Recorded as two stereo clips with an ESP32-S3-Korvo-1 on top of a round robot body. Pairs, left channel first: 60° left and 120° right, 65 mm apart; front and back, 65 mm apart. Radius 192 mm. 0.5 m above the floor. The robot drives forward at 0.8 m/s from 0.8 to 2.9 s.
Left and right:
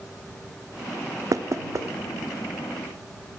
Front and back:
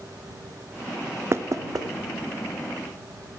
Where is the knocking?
135° right, 0.5 m; by 1.9 s 160° right, 0.8 m.